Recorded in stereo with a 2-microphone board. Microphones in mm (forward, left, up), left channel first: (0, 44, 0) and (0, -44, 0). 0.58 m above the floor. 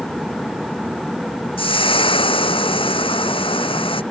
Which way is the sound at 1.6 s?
85° left.